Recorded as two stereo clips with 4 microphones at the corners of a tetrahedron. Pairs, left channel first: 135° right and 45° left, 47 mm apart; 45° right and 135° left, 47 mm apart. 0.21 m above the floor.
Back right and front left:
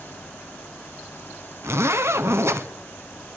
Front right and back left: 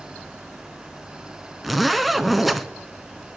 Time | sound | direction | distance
1.6 | a zipper | 50° left | 0.6 m